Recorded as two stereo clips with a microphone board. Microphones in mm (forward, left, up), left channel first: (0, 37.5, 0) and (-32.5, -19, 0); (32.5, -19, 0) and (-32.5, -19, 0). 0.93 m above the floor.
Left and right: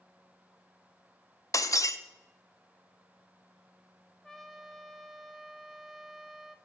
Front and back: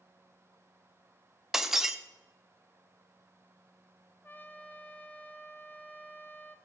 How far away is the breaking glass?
About 0.6 m.